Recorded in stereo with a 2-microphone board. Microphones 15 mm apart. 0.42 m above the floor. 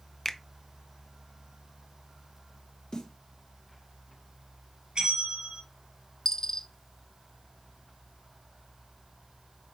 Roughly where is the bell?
Right.